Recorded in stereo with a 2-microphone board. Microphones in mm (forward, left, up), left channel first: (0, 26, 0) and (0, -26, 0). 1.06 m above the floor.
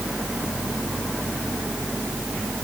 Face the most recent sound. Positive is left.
No sound to turn to.